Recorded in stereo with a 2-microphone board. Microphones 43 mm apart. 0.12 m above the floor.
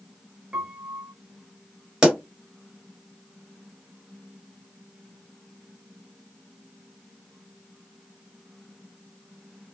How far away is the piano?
About 0.5 m.